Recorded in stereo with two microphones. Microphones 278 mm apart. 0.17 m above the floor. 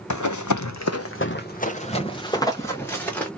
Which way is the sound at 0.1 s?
75° left (ahead or behind).